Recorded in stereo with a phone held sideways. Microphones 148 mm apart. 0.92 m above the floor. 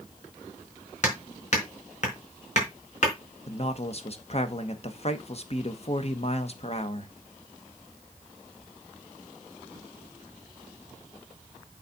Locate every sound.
1.0 s hammering: 50° left (ahead or behind), 4.5 m
3.5 s a man speaking: 45° left (ahead or behind), 1.2 m